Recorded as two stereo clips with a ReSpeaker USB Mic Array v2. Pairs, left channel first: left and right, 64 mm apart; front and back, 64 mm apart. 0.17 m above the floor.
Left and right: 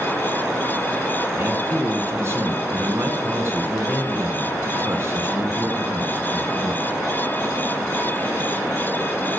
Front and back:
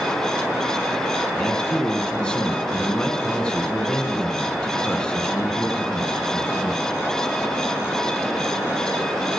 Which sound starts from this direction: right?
A man speaking, at 1.4 s.